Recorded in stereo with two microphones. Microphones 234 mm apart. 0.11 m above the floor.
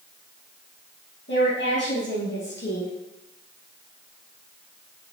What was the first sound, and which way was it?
A woman speaking, 50° left (ahead or behind).